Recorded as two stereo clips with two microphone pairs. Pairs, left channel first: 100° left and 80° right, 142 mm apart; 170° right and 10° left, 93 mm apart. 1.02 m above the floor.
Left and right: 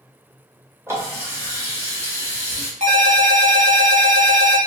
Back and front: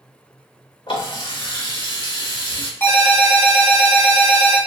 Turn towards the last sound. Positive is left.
turn(degrees=-110)